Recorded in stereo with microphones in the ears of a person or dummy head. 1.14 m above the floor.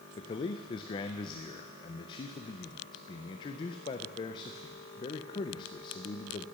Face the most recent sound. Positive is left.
turn(degrees=25)  # may be behind; listen again after turning